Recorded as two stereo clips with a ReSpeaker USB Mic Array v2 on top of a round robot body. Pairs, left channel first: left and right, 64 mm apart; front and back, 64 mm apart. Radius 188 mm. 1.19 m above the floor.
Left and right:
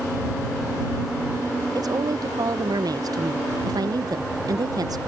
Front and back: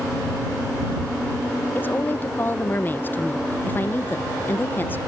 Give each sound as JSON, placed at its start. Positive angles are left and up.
{"t": 1.8, "sound": "a woman speaking", "azimuth_deg": -60}